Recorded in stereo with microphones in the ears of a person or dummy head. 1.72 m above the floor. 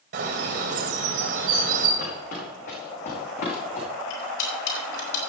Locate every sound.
0.1 s a bird: 50° right (ahead or behind), 2 m
2.0 s footsteps: 60° left (ahead or behind), 5 m; by 3.9 s 55° left (ahead or behind), 6 m
4.1 s cutlery clinking: 65° left (ahead or behind), 4 m